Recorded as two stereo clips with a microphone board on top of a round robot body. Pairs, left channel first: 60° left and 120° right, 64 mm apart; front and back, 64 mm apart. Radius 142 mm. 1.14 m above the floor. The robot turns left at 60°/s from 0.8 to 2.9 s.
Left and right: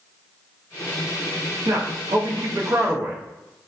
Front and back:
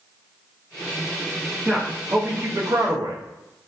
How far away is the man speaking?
About 0.8 m.